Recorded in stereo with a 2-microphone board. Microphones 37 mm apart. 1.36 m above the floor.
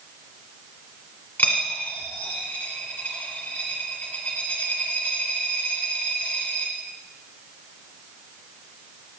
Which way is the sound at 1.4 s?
55° left (ahead or behind).